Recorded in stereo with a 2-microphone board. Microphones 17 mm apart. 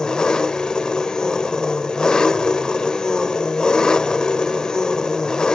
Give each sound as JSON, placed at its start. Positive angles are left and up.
{"t": 0.0, "sound": "an engine running", "side_deg": 50, "distance_m": 1.2}